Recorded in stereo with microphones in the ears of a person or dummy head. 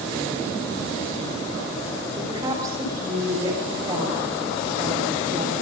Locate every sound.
2.2 s a woman speaking: 25° right (ahead or behind), 6 m